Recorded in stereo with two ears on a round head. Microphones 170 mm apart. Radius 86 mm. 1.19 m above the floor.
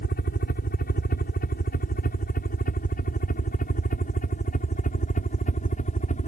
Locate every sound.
0.0 s a helicopter: 50° left (ahead or behind); by 6.3 s 40° left (ahead or behind)